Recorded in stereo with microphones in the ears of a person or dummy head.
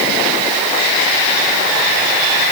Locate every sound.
Only background noise.